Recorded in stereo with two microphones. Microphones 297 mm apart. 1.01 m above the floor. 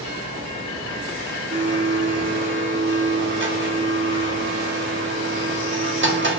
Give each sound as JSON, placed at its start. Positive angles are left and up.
{"t": 1.5, "sound": "a blender", "side_deg": -45, "distance_m": 0.8}